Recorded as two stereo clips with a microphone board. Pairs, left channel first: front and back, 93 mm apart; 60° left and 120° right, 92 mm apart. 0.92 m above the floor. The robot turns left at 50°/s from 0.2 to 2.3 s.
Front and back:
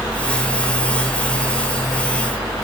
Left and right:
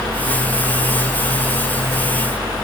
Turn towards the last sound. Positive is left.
No sound to turn to.